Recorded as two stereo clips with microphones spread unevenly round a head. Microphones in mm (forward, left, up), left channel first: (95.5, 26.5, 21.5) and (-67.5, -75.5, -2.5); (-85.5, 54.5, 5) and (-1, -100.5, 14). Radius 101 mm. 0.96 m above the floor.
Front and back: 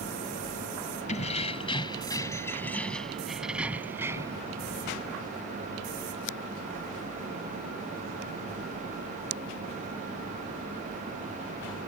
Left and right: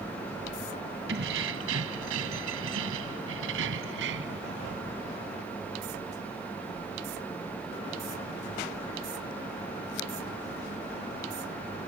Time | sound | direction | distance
1.1 | keys jangling | 20° right | ?